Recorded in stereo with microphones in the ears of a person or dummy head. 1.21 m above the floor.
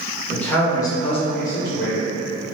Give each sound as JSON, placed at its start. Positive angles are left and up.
{"t": 0.3, "sound": "a man speaking", "side_deg": 10, "distance_m": 1.1}